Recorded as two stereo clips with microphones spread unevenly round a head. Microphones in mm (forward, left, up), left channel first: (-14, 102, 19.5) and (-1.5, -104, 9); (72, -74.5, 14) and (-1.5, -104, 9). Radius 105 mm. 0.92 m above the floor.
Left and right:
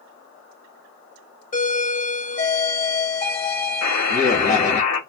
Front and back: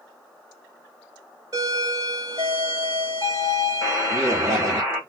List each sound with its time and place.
1.5 s a doorbell: 145° left, 2.5 m
3.8 s a buzzer: 110° left, 2 m